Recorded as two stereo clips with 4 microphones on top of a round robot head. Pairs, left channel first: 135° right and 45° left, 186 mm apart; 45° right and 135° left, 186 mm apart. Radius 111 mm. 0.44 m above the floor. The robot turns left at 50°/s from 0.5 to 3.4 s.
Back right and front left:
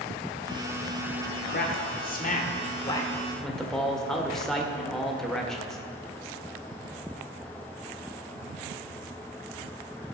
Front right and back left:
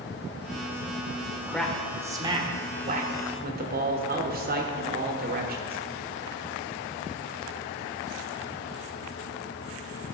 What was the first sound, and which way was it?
A man speaking, 125° right.